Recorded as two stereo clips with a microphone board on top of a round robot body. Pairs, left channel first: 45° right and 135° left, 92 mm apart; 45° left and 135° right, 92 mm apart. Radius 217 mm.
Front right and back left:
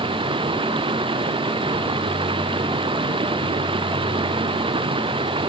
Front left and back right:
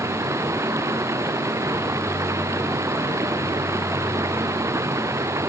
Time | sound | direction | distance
0.0 | running water | 165° left | ?